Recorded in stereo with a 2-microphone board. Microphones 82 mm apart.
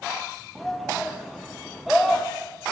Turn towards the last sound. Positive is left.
turn(degrees=0)  # may be behind; listen again after turning